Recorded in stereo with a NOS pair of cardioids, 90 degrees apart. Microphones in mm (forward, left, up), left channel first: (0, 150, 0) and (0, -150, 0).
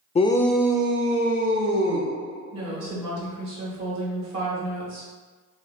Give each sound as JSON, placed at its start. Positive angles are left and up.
{"t": 0.1, "sound": "a shout", "azimuth_deg": 25, "distance_m": 0.5}
{"t": 2.5, "sound": "a woman speaking", "azimuth_deg": -65, "distance_m": 1.6}